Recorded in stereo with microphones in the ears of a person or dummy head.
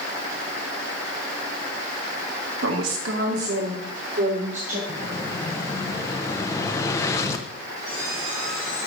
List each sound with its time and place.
2.6 s a woman speaking: 80° right, 1.8 m; by 4.8 s 40° right (ahead or behind), 3.5 m
4.9 s an explosion: 15° left (ahead or behind), 0.6 m
7.8 s a squeak: 5° right (ahead or behind), 3.5 m